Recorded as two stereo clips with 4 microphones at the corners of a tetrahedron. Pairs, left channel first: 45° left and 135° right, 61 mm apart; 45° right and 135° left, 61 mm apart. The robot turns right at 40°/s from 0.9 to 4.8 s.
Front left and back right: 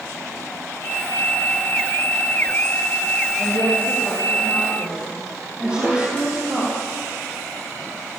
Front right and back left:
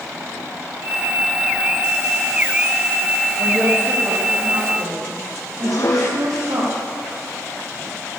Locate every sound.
3.4 s a woman speaking: 95° left, 8 m; by 6.6 s 150° left, 8 m
5.6 s dishes clattering: 70° right, 4 m